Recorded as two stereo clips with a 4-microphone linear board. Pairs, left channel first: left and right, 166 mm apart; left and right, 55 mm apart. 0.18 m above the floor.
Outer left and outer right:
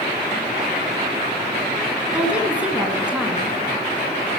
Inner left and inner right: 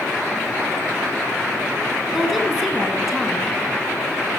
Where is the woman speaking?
5° right (ahead or behind), 1.9 m.